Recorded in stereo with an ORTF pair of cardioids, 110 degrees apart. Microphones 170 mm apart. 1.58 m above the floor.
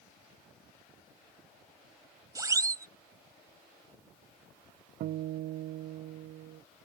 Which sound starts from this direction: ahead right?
A guitar, at 5.0 s.